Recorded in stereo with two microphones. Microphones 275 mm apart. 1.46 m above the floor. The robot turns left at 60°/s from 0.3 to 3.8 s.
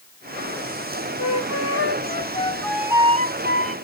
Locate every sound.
1.2 s a flute: 90° left, 0.7 m; by 3.8 s 60° right, 0.7 m